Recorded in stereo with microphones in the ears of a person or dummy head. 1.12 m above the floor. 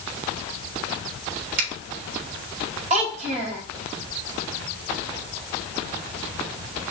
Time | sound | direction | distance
1.6 | a finger snap | 55° right (ahead or behind) | 3.5 m
2.9 | a child speaking | 35° right (ahead or behind) | 2.5 m